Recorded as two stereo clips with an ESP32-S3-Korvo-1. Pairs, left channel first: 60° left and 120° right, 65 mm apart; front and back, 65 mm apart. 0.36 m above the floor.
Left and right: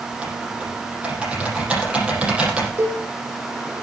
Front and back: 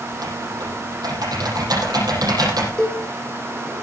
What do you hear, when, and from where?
0.1 s typing on a keyboard: 165° left, 7 m
2.8 s a cowbell: 75° right, 8.5 m